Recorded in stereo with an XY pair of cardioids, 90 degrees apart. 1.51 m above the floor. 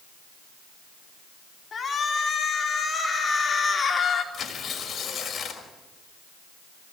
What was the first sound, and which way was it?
A shout, 45° left.